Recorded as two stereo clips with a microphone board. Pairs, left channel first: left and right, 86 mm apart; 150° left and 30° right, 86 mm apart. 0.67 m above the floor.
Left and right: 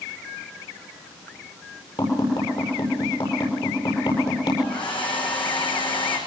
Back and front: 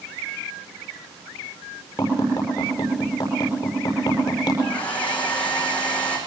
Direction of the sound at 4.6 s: 75° left.